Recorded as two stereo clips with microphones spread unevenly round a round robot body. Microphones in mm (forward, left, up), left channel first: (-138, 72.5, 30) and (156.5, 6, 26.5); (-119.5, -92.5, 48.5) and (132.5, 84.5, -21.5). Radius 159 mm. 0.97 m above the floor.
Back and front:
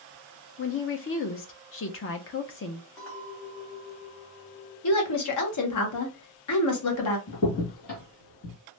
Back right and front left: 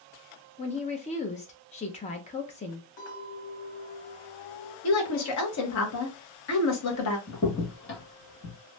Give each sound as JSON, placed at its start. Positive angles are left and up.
{"t": 0.6, "sound": "a woman speaking", "azimuth_deg": 140, "distance_m": 0.6}
{"t": 3.0, "sound": "a clink", "azimuth_deg": -140, "distance_m": 1.7}
{"t": 4.8, "sound": "a woman speaking", "azimuth_deg": 175, "distance_m": 0.9}
{"t": 7.3, "sound": "a crack", "azimuth_deg": -165, "distance_m": 1.1}